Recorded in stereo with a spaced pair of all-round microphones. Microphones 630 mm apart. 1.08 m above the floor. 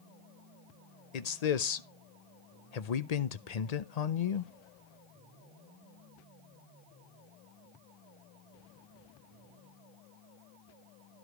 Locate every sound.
1.1 s a man speaking: 75° left (ahead or behind), 0.8 m